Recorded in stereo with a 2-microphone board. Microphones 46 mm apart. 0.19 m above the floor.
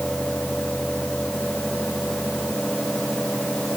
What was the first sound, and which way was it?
Only background noise.